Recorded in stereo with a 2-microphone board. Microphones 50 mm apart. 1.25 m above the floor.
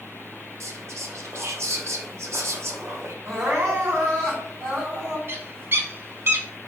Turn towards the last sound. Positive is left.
turn(degrees=-50)  # may be behind; listen again after turning